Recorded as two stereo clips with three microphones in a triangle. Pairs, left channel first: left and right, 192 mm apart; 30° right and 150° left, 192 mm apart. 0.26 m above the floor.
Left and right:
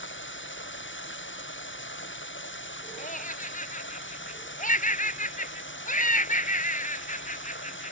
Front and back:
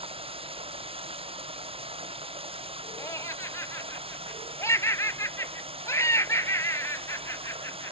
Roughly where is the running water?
Left.